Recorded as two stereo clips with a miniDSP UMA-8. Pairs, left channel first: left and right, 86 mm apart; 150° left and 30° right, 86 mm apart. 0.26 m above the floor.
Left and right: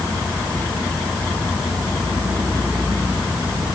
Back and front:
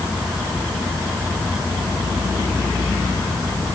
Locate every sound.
Only background noise.